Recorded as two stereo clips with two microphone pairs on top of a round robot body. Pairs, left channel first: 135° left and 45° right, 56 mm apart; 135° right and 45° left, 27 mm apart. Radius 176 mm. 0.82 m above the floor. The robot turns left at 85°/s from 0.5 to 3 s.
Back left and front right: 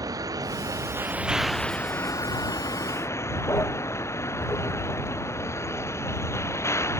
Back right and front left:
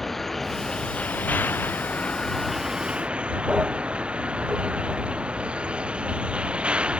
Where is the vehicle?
50° right; by 7.0 s 100° left.